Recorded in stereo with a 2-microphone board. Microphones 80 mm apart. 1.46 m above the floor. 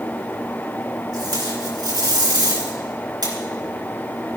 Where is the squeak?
No squeak in this recording.